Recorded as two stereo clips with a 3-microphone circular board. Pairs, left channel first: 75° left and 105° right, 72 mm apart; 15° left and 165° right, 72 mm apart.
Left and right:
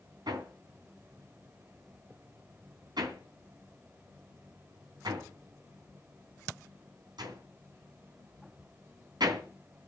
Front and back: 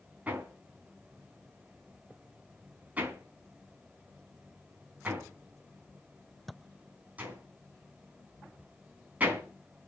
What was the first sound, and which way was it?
Hammering, 95° right.